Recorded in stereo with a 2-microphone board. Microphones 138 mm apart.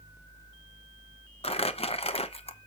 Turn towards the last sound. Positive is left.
turn(degrees=45)  # may be behind; listen again after turning